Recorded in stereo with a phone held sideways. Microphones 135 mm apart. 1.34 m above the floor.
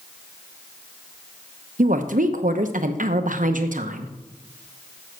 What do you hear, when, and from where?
1.8 s a woman speaking: 75° right (ahead or behind), 0.9 m